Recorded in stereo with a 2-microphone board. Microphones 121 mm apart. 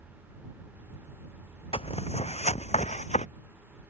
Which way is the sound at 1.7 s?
50° left (ahead or behind).